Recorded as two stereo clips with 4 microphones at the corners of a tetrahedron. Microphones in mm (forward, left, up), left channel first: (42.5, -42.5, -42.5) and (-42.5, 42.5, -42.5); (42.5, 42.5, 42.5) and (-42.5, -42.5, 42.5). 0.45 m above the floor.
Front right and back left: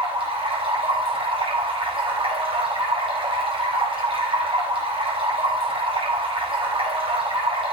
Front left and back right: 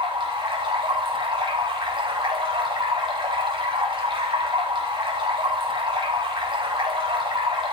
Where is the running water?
Straight behind, 2.5 m.